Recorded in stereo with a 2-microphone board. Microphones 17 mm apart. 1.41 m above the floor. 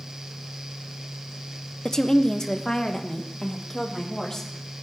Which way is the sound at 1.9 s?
35° left (ahead or behind).